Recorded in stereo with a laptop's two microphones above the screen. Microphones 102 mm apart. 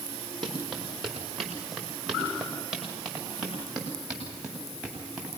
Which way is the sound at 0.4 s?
Centre (ahead or behind).